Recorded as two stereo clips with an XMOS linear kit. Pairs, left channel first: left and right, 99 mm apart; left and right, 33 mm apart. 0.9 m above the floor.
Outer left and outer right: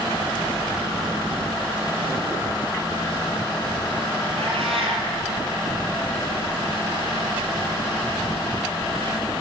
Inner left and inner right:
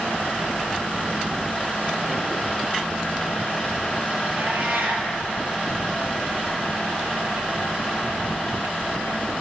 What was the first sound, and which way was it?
A cat meowing, 75° right (ahead or behind).